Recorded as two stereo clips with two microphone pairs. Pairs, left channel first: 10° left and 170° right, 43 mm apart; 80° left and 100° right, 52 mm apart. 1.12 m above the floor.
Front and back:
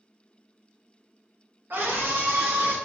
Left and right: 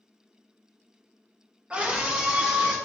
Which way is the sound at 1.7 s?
165° right.